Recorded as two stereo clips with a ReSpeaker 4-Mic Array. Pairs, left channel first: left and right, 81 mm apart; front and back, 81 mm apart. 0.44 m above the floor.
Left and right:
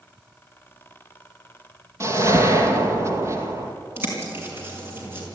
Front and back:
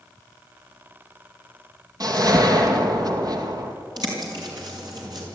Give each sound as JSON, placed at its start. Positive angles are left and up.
{"t": 2.0, "sound": "a whoosh", "azimuth_deg": -140, "distance_m": 2.0}
{"t": 4.0, "sound": "a bird", "azimuth_deg": -150, "distance_m": 5.5}